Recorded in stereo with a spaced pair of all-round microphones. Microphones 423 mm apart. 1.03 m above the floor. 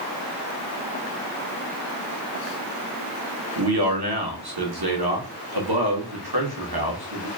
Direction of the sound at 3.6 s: 60° right (ahead or behind).